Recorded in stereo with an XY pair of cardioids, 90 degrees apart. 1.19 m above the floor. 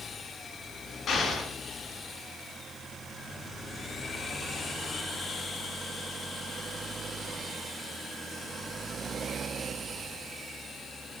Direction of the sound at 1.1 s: 70° left.